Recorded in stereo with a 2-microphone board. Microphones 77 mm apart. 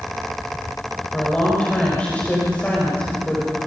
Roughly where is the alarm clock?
I don't hear an alarm clock.